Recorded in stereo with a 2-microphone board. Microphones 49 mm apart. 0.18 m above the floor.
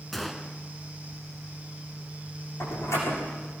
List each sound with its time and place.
0.1 s a gunshot: 5° left (ahead or behind), 1.4 m
2.6 s a door slam: 75° left (ahead or behind), 8 m